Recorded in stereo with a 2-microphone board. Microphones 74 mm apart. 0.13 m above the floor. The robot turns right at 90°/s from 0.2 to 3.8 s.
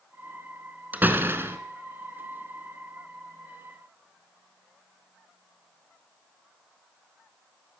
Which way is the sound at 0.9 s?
135° right.